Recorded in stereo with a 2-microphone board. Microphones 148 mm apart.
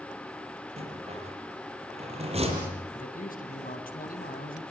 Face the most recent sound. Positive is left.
turn(degrees=75)  # may be behind; listen again after turning